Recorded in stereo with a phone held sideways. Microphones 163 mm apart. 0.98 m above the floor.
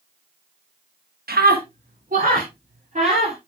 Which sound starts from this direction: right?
A scream, at 1.3 s.